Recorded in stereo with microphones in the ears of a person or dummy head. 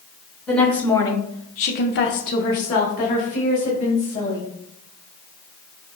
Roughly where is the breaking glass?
No breaking glass in this recording.